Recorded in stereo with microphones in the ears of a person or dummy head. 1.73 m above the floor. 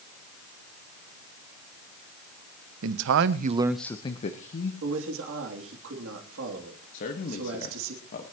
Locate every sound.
2.8 s a man speaking: 80° right, 1.0 m; by 4.7 s 50° left (ahead or behind), 1.4 m
4.8 s a man speaking: 80° right, 3 m
6.9 s a man speaking: 50° left (ahead or behind), 1.5 m